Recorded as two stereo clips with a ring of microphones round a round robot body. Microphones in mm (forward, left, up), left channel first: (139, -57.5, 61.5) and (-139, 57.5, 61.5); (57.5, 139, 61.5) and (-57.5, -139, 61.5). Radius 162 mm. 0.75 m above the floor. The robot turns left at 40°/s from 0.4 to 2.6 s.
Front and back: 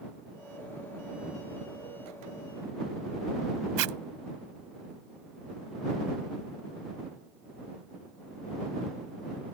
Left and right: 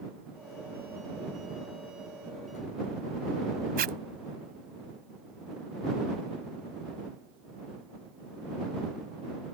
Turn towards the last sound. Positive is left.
turn(degrees=-175)